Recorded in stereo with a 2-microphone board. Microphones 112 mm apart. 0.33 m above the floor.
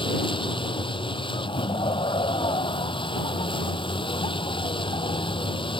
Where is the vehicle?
50° left (ahead or behind).